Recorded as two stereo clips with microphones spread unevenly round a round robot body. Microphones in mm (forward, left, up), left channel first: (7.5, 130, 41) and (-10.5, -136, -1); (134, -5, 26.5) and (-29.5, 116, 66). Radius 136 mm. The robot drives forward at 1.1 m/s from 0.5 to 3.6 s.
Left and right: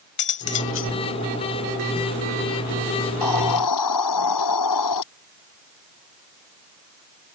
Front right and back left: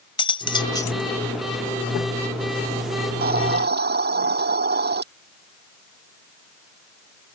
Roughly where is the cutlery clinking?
Ahead left.